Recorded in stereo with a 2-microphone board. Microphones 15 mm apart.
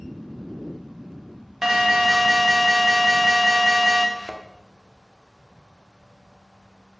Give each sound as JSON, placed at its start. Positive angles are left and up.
{"t": 1.6, "sound": "an alarm", "side_deg": -30, "distance_m": 1.5}
{"t": 4.2, "sound": "a thud", "side_deg": 5, "distance_m": 1.4}